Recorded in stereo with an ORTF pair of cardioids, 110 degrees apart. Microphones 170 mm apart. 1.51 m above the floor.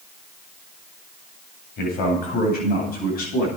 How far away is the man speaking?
About 9 m.